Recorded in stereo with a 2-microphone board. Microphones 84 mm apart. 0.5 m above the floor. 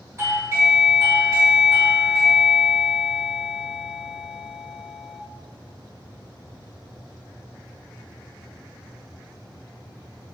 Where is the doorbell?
30° right (ahead or behind), 1.4 m.